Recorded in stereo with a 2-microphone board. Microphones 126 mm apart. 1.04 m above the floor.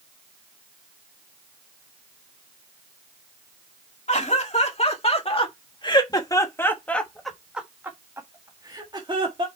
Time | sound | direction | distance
4.1 | laughter | 65° left (ahead or behind) | 2 m